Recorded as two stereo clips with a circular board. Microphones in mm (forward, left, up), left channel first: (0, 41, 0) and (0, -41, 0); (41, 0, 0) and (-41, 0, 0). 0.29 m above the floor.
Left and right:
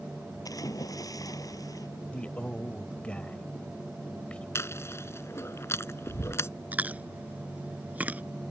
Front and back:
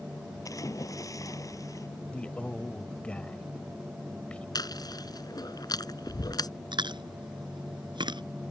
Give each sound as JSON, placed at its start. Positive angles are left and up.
{"t": 0.5, "sound": "a splash", "azimuth_deg": 45}
{"t": 2.1, "sound": "a man speaking", "azimuth_deg": 45}
{"t": 4.5, "sound": "chewing", "azimuth_deg": 35}
{"t": 6.7, "sound": "chewing", "azimuth_deg": -160}